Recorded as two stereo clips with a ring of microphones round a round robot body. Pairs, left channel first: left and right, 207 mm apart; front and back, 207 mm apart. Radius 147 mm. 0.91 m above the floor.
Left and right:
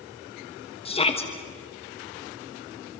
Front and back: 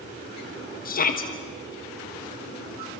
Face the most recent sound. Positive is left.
turn(degrees=35)